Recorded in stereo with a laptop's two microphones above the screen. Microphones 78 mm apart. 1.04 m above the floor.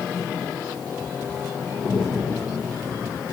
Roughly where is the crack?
Right.